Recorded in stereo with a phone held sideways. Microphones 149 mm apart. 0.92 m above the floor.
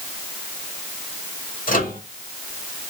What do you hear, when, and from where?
1.7 s a microwave: 70° left (ahead or behind), 1.8 m